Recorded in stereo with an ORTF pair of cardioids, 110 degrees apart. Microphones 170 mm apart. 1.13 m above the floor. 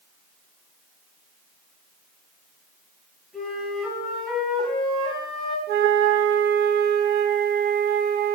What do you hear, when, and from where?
3.3 s a flute: straight ahead, 4 m
5.7 s a flute: 65° right, 0.7 m